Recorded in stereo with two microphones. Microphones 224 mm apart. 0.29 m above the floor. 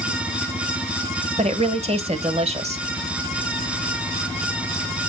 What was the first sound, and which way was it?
A woman speaking, 30° right (ahead or behind).